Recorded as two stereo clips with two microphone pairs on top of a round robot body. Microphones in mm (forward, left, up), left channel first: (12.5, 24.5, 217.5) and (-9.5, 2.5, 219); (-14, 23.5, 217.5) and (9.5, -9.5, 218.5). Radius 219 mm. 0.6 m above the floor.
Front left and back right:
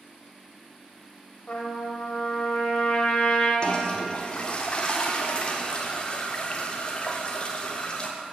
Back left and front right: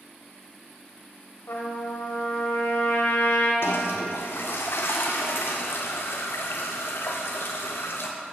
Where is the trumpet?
105° left, 0.9 m.